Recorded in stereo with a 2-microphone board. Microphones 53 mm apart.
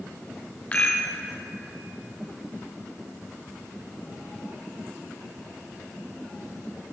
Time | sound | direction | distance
0.7 | a rattle | 25° left (ahead or behind) | 3 m